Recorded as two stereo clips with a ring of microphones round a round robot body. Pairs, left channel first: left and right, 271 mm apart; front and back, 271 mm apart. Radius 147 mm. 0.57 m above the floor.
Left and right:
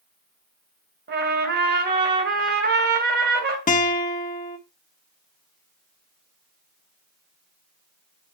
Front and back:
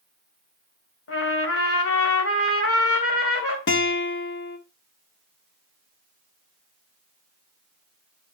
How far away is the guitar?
About 1.2 m.